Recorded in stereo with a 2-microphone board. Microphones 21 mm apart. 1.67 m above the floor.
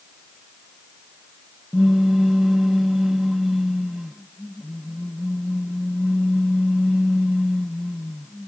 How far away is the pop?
About 0.5 m.